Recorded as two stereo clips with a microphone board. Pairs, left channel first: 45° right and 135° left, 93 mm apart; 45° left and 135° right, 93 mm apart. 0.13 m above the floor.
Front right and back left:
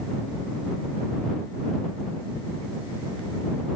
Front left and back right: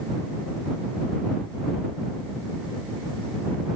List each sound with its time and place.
Only background noise.